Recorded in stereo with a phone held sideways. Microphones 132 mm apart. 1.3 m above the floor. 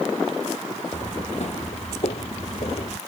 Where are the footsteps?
60° left (ahead or behind); by 3.0 s 50° left (ahead or behind).